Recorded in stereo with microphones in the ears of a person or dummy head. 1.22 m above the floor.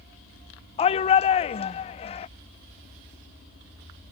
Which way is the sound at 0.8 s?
30° left (ahead or behind).